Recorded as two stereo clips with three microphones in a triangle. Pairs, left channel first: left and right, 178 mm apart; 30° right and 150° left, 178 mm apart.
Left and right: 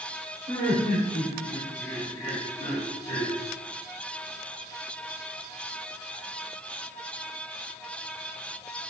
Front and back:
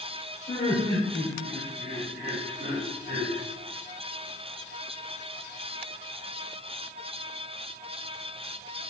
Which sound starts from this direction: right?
Laughter, at 0.5 s.